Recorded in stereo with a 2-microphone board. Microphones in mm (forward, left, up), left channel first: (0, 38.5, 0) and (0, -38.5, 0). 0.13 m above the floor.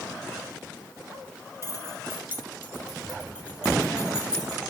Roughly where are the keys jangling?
Right.